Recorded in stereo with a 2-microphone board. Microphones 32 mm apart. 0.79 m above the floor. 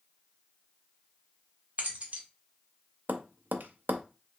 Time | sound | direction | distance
1.8 | keys jangling | 45° right (ahead or behind) | 1.0 m
3.1 | tapping | 75° right (ahead or behind) | 0.5 m